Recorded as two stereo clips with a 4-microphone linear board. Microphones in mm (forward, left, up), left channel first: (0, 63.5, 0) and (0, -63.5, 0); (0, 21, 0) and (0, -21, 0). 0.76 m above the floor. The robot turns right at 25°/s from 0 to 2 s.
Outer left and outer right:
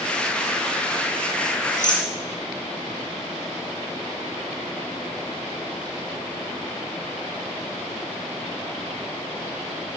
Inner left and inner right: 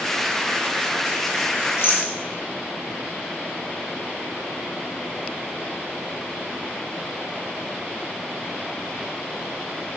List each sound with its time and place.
1.8 s a rattle: 80° left, 3 m